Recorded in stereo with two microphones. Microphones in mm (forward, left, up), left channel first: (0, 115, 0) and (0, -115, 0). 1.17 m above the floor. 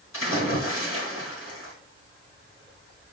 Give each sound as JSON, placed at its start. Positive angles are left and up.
{"t": 0.1, "sound": "a splash", "side_deg": 70, "distance_m": 4.0}